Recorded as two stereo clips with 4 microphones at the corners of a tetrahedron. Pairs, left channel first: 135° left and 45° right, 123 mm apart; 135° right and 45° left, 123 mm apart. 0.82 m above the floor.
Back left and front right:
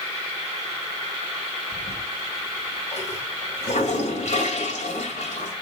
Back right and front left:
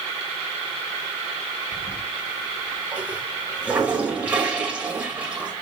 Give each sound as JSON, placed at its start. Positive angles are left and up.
{"t": 1.7, "sound": "a toilet flushing", "azimuth_deg": 125, "distance_m": 2.5}